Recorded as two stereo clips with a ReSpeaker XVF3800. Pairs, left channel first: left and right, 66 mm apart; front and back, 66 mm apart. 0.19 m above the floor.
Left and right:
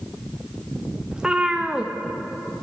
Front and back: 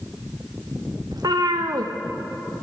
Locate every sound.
1.1 s a cat meowing: 165° right, 2 m